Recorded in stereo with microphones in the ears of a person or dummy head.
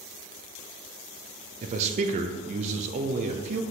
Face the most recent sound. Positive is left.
turn(degrees=-40)  # may be behind; listen again after turning